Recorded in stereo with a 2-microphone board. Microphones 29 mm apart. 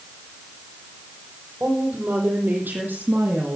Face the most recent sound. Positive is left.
turn(degrees=-80)